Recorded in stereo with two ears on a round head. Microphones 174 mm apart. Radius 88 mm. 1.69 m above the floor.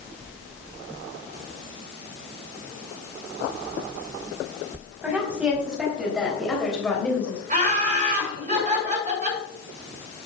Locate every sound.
5.0 s a woman speaking: 10° right (ahead or behind), 4 m; by 7.4 s 10° left (ahead or behind), 2.5 m
7.5 s laughter: 40° right (ahead or behind), 5.5 m